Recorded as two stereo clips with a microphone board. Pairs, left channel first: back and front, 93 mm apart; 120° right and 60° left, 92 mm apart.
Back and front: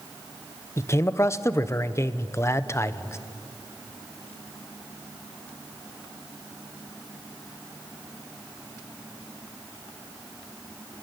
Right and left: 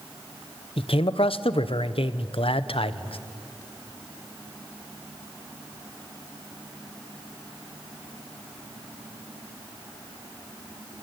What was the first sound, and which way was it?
A man speaking, 120° right.